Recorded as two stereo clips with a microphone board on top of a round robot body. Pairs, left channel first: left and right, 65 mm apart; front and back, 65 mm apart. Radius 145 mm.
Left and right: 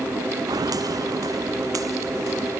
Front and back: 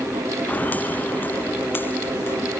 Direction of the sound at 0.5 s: 65° right.